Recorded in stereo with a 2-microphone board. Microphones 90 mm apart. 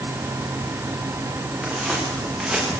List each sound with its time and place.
1.6 s footsteps: centre (ahead or behind), 9 m; by 2.8 s 5° right (ahead or behind), 9.5 m